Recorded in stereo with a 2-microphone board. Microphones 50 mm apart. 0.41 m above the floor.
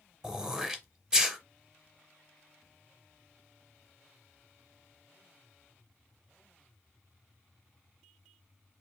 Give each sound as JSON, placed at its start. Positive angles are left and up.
{"t": 0.2, "sound": "throat clearing", "side_deg": -10, "distance_m": 0.7}